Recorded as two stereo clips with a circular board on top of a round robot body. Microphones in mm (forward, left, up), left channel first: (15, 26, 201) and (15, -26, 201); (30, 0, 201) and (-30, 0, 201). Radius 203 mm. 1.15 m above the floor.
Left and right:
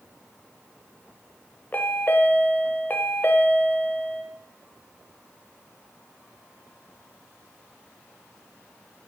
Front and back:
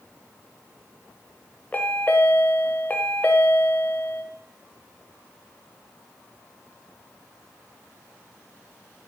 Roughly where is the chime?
Ahead left.